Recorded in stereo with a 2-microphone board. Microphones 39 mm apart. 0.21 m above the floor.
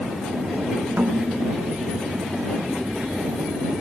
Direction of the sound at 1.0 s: 45° right (ahead or behind).